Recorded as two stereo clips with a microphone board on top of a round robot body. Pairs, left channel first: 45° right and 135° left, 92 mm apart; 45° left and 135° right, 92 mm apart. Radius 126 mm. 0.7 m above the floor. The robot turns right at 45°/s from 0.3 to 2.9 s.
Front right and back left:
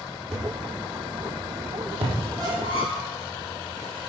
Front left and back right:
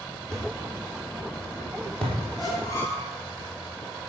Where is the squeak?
85° left, 6 m; by 3.1 s 110° left, 6 m.